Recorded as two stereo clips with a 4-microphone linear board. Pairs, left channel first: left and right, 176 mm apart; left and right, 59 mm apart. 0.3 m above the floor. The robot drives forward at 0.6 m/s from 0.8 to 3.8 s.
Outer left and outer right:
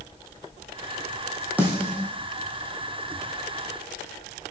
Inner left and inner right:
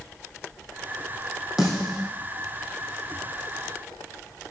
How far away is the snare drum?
About 4 m.